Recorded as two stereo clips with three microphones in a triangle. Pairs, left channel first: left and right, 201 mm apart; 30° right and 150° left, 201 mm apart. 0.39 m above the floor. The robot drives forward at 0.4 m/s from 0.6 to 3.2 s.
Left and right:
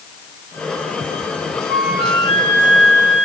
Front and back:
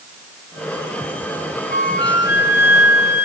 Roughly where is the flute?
Ahead right.